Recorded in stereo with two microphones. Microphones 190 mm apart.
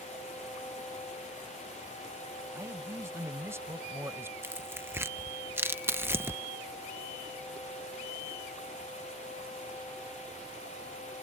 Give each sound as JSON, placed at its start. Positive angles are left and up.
{"t": 2.5, "sound": "a man speaking", "side_deg": -15}
{"t": 4.4, "sound": "tearing paper", "side_deg": -10}